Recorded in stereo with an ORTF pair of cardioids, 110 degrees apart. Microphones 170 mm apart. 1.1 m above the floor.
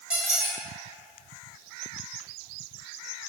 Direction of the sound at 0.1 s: 5° right.